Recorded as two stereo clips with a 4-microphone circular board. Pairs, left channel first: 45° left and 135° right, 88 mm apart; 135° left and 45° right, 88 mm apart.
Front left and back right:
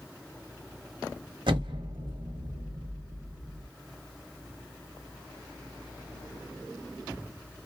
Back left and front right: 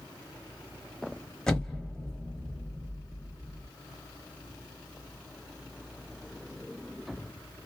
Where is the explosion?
145° right, 0.9 m.